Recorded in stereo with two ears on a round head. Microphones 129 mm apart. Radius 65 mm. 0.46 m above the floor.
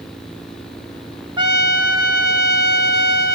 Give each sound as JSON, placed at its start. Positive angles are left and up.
{"t": 1.4, "sound": "a trumpet", "side_deg": -30, "distance_m": 1.3}